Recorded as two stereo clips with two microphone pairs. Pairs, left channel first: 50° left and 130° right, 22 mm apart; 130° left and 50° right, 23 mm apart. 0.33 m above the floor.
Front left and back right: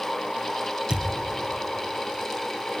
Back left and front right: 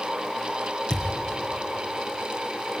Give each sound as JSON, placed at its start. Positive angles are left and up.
{"t": 0.9, "sound": "a thud", "azimuth_deg": -170, "distance_m": 2.5}